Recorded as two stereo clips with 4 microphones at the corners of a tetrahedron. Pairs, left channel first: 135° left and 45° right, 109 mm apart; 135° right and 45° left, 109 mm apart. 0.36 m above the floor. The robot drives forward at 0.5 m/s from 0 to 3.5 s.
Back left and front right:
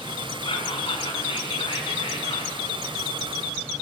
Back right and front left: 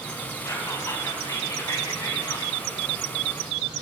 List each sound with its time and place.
0.5 s whispering: 165° left, 3.5 m